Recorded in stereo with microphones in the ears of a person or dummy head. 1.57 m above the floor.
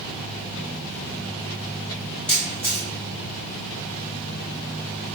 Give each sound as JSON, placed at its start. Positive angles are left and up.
{"t": 2.3, "sound": "a camera shutter", "side_deg": 5, "distance_m": 1.4}